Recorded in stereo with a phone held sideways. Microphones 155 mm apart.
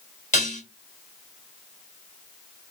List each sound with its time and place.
0.3 s dishes clattering: 50° left (ahead or behind), 1.1 m